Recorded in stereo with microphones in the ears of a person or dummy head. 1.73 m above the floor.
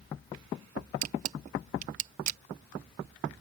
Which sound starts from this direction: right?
A camera shutter, at 1.0 s.